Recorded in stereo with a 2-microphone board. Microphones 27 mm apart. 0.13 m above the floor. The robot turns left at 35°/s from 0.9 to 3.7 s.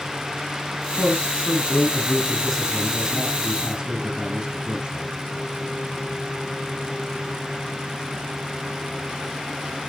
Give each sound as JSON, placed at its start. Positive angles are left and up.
{"t": 1.0, "sound": "a man speaking", "azimuth_deg": 65, "distance_m": 4.0}